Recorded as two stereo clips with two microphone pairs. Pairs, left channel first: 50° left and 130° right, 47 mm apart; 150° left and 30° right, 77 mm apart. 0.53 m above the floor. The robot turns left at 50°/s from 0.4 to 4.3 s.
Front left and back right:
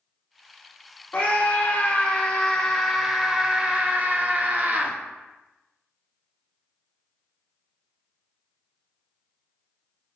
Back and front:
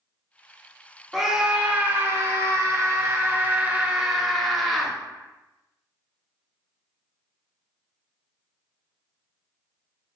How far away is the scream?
About 0.9 m.